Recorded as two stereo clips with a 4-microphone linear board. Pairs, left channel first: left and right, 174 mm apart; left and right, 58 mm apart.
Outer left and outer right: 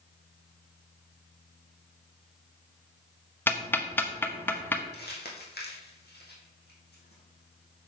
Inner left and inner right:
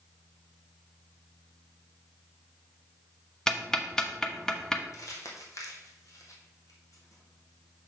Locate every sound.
3.5 s ticking: 10° left (ahead or behind), 0.9 m
4.9 s crumpling: 70° left (ahead or behind), 2 m